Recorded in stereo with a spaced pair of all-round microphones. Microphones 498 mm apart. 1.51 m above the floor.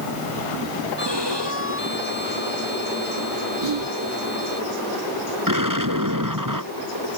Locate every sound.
1.0 s a violin: 55° right (ahead or behind)
3.6 s whispering: 60° right (ahead or behind)
5.5 s an explosion: 40° right (ahead or behind)